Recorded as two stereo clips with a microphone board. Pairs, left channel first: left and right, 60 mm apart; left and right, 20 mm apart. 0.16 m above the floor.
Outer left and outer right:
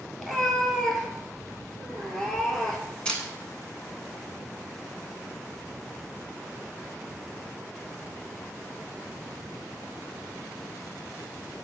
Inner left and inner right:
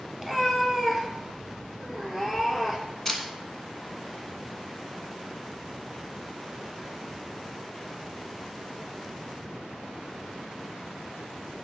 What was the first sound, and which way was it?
A cat meowing, 5° left (ahead or behind).